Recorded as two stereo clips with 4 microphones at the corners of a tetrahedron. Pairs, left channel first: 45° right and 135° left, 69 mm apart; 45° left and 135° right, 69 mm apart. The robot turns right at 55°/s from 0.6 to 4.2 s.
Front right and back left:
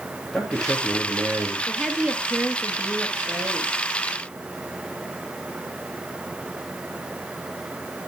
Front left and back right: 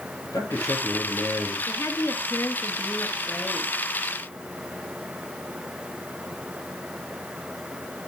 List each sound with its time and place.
0.3 s a man speaking: 45° left, 3 m; by 1.6 s 95° left, 3 m
1.7 s a woman speaking: 40° left, 1.8 m; by 3.7 s 150° left, 1.8 m